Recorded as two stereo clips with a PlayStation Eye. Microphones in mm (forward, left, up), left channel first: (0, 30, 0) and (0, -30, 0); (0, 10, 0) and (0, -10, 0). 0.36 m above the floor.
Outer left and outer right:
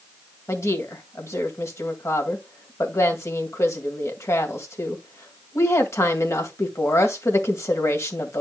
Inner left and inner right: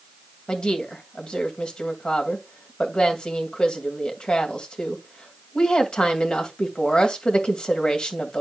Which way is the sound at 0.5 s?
55° left (ahead or behind).